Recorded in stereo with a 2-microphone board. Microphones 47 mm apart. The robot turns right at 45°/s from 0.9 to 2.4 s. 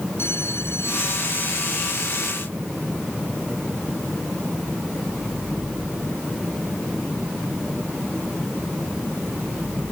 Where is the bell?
120° left; by 2.4 s 175° right.